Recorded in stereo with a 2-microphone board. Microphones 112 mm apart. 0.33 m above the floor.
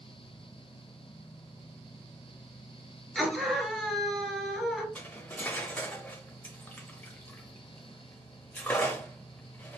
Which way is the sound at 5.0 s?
15° left (ahead or behind).